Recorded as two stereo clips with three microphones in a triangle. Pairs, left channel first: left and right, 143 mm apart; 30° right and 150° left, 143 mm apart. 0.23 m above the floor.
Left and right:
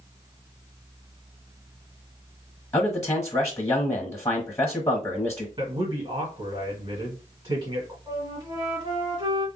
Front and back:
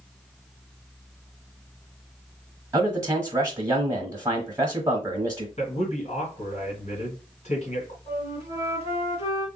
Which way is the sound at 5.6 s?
35° right.